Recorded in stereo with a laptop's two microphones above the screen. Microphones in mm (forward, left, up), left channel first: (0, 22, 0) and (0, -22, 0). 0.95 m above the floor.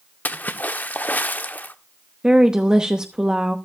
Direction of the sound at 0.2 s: 35° left (ahead or behind).